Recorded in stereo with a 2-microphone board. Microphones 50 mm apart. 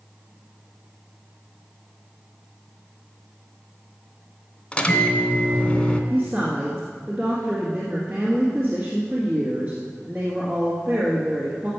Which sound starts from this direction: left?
A microwave, at 4.7 s.